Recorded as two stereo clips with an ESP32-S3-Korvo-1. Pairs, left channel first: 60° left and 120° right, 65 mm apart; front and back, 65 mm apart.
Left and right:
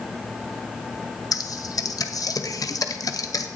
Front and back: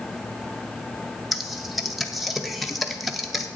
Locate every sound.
1.3 s typing on a keyboard: 90° left, 0.7 m